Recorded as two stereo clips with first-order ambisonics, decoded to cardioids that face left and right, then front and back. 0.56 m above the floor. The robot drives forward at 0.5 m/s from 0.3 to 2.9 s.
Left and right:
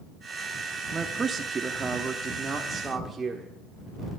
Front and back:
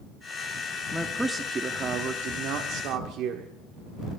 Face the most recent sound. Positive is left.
turn(degrees=-165)